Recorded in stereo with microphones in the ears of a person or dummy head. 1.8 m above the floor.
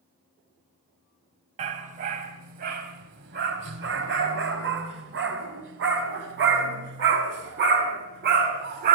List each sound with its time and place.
1.6 s a dog barking: 40° right (ahead or behind), 3 m; by 9.0 s 60° right (ahead or behind), 5 m